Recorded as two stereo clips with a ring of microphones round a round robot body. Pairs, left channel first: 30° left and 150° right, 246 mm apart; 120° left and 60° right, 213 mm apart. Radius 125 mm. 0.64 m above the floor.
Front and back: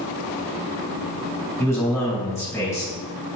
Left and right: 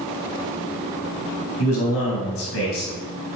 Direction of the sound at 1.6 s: 110° left.